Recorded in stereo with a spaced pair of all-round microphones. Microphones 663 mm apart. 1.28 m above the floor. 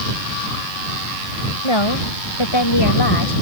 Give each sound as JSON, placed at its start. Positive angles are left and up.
{"t": 1.6, "sound": "a woman speaking", "side_deg": 45}